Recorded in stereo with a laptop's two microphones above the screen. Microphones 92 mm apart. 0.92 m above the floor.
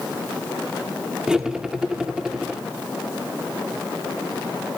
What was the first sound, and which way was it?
Cutlery clinking, 10° right (ahead or behind).